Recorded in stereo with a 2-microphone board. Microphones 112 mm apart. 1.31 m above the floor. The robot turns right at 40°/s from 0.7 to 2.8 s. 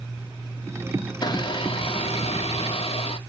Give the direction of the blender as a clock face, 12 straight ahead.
11 o'clock.